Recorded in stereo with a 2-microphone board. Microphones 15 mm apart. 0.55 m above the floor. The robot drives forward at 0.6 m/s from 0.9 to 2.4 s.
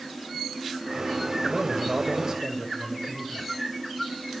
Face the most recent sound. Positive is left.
turn(degrees=-40)  # may be behind; listen again after turning